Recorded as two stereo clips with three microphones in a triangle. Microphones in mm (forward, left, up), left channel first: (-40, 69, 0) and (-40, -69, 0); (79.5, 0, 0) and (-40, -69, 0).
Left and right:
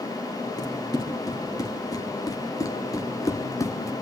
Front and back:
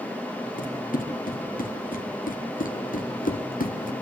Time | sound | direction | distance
0.6 | running footsteps | 25° left | 3.5 m